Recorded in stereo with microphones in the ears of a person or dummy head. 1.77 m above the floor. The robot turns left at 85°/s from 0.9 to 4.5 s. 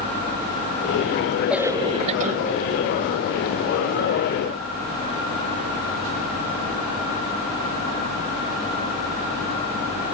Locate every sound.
1.5 s a cough: 5° right; by 2.4 s 80° right